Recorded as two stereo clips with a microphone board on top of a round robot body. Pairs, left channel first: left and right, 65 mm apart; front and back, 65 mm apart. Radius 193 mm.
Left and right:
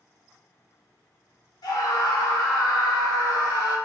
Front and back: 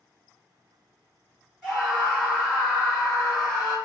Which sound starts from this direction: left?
A scream, at 1.6 s.